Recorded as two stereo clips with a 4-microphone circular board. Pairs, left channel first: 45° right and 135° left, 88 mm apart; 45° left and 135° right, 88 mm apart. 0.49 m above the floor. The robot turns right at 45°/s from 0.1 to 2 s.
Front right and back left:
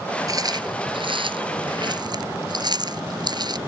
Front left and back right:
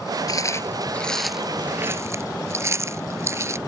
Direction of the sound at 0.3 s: 90° left.